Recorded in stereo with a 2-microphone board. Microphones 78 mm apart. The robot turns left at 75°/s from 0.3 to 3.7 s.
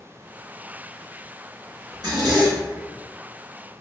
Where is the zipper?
50° right, 1.9 m; by 3.0 s 130° right, 1.9 m.